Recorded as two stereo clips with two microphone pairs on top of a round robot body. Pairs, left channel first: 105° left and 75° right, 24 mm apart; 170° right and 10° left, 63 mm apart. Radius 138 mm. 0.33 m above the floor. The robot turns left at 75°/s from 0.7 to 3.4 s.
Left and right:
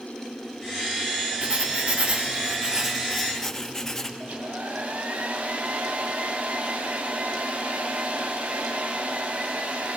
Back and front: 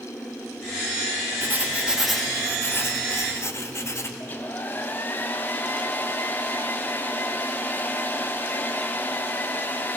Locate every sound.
1.4 s writing: 35° right, 1.2 m; by 4.1 s straight behind, 1.2 m
4.2 s a hair dryer: 110° right, 0.6 m